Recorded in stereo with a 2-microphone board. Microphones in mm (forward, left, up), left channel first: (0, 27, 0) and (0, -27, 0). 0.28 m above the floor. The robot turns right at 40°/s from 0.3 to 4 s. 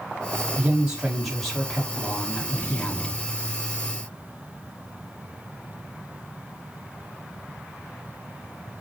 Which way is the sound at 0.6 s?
30° right.